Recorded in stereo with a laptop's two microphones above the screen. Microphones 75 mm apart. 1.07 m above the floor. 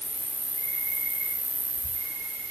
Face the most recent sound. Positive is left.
turn(degrees=-45)  # may be behind; listen again after turning